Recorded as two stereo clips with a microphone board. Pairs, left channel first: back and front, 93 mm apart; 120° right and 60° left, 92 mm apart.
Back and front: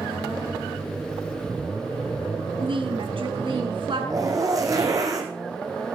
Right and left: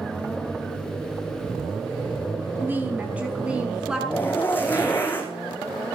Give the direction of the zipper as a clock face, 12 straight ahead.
2 o'clock.